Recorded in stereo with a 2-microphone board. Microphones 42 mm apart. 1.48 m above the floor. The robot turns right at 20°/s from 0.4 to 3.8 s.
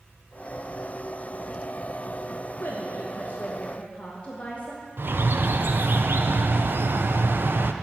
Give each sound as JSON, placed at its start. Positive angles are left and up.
{"t": 2.6, "sound": "a woman speaking", "side_deg": 55, "distance_m": 1.3}
{"t": 5.0, "sound": "a bird", "side_deg": -60, "distance_m": 0.6}